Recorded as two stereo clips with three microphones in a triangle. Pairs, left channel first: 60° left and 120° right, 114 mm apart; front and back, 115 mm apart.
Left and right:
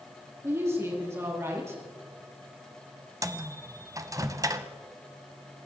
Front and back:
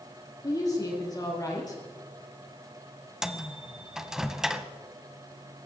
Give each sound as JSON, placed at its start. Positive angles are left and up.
{"t": 0.4, "sound": "a woman speaking", "azimuth_deg": -55, "distance_m": 5.0}
{"t": 3.2, "sound": "a microwave", "azimuth_deg": -100, "distance_m": 0.9}